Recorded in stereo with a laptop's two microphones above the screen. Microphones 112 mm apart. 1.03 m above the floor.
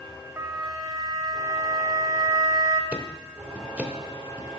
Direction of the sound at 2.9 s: 15° right (ahead or behind).